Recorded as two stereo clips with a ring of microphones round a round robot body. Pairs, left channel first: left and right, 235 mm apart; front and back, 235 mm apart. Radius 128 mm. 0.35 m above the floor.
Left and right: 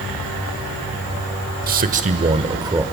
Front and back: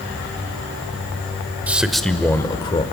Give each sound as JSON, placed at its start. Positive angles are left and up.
{"t": 1.7, "sound": "a man speaking", "azimuth_deg": -100, "distance_m": 1.0}